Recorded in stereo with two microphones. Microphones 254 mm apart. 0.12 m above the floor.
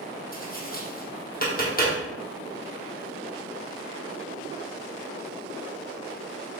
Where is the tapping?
35° left (ahead or behind), 1.9 m.